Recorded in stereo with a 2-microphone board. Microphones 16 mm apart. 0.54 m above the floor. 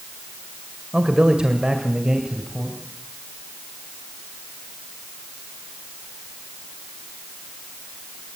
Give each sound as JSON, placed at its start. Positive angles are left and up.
{"t": 0.9, "sound": "a man speaking", "side_deg": -55, "distance_m": 2.0}